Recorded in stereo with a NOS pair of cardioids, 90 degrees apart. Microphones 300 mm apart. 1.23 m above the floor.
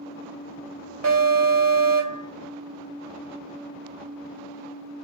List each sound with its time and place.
1.0 s an alarm: 65° right, 3 m